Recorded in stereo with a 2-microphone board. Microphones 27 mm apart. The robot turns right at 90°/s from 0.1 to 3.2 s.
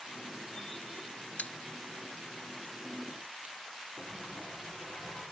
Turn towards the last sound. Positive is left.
turn(degrees=60)  # may be behind; listen again after turning